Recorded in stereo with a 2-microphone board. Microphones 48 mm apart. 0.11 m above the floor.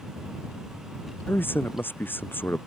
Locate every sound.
1.3 s a man speaking: 45° left (ahead or behind)